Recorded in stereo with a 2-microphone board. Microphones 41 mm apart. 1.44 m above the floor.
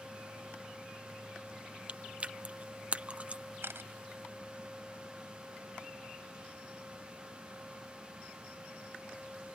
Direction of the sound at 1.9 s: 35° right (ahead or behind).